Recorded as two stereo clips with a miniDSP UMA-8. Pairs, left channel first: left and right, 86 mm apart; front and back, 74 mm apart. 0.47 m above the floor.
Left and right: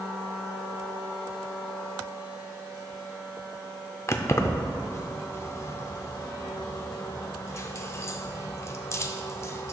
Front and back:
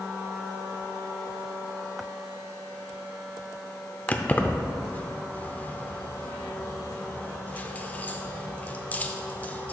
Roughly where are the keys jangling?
Ahead left.